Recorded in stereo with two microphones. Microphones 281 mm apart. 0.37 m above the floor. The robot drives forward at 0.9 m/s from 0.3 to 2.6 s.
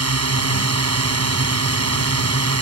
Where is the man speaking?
I don't hear a man speaking.